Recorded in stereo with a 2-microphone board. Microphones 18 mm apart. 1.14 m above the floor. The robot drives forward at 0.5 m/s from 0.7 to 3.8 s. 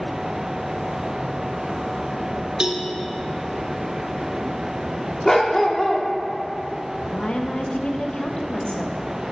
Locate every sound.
2.6 s a cowbell: 50° right (ahead or behind), 0.9 m
5.2 s a dog barking: 30° left (ahead or behind), 1.0 m
7.1 s a woman speaking: 75° left (ahead or behind), 0.9 m